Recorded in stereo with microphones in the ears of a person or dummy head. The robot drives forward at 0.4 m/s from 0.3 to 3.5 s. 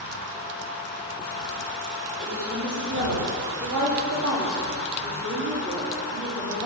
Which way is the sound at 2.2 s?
65° right (ahead or behind).